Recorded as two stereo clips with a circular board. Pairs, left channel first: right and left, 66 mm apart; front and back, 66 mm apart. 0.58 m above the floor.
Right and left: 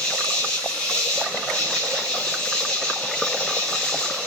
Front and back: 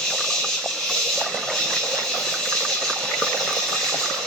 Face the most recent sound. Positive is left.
turn(degrees=-50)